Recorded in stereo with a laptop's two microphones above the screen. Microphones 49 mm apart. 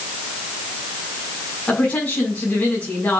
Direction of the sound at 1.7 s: 30° left (ahead or behind).